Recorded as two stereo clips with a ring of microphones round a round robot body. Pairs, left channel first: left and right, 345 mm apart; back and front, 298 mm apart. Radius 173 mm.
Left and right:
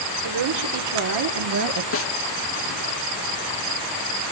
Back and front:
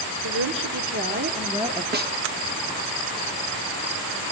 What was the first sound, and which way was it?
A woman speaking, 50° right.